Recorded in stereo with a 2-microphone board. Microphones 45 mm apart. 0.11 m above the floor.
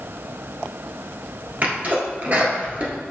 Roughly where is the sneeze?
Right.